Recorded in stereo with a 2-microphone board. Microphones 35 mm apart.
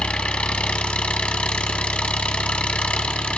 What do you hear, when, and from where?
0.0 s an engine running: 35° left (ahead or behind), 0.7 m